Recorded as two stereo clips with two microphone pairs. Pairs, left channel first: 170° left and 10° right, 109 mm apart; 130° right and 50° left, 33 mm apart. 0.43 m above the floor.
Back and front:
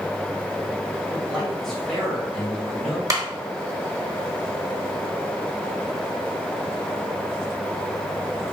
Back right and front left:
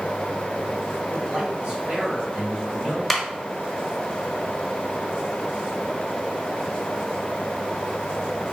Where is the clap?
35° right, 0.9 m.